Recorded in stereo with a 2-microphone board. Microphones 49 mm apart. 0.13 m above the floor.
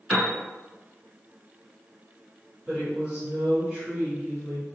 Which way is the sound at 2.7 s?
20° right (ahead or behind).